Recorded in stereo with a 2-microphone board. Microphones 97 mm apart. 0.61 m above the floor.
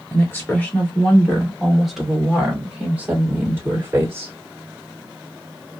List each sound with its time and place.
0.1 s a woman speaking: 25° left (ahead or behind), 1.8 m; by 4.3 s 25° right (ahead or behind), 3 m